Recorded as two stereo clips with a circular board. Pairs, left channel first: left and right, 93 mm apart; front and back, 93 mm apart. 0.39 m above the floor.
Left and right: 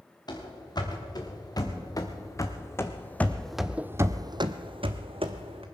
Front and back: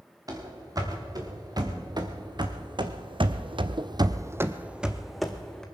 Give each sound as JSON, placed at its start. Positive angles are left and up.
{"t": 0.3, "sound": "running footsteps", "azimuth_deg": 130, "distance_m": 3.0}